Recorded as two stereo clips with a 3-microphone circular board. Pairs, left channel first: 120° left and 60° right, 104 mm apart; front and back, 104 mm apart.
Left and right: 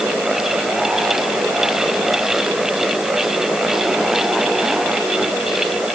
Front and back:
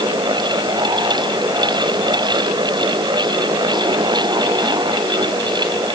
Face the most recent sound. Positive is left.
No sound to turn to.